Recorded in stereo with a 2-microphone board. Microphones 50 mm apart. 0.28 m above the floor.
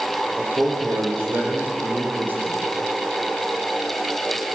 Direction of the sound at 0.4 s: 45° right (ahead or behind).